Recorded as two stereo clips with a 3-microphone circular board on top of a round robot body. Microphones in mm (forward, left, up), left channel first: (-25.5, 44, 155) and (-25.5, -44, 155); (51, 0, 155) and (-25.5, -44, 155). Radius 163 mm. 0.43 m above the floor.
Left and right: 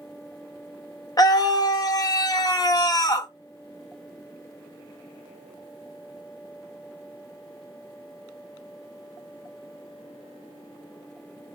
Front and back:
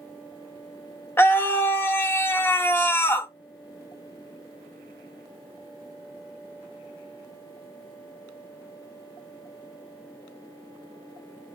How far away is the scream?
About 1.0 m.